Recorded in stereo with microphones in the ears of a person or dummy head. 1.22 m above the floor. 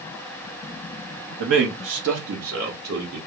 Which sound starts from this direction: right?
A man speaking, at 1.4 s.